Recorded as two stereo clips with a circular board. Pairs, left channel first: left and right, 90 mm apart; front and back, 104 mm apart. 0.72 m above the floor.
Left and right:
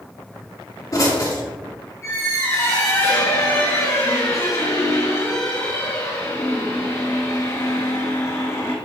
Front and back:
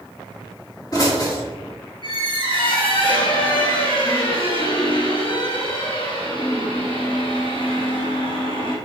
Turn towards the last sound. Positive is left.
turn(degrees=30)